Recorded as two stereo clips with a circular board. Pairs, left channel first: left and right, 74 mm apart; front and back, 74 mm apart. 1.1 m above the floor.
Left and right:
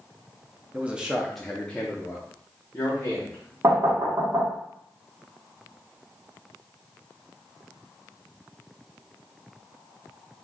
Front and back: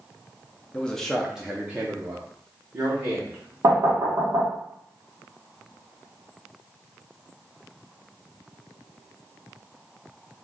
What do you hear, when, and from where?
0.7 s a man speaking: 50° right, 0.6 m; by 3.5 s 140° left, 1.3 m
3.6 s knocking: 140° right, 1.4 m